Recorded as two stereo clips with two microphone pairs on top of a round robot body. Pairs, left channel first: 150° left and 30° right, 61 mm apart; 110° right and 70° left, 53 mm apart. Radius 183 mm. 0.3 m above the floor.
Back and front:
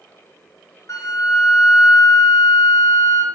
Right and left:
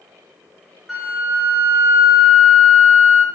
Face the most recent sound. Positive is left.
turn(degrees=155)